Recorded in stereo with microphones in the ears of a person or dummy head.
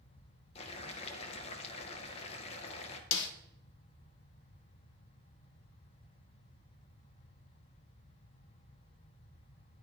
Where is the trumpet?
No trumpet in this recording.